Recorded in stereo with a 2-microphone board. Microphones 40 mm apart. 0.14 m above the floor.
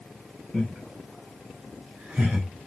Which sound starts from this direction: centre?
Laughter, at 0.5 s.